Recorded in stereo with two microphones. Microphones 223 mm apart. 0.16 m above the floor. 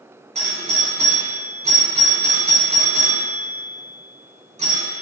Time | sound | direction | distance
0.3 | a doorbell | 30° right (ahead or behind) | 1.7 m